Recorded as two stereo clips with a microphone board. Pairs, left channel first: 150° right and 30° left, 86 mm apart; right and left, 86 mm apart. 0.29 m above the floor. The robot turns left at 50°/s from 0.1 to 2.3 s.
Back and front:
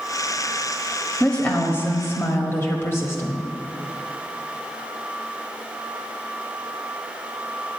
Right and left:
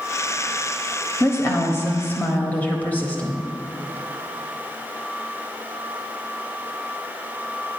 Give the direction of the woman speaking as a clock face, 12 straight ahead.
3 o'clock.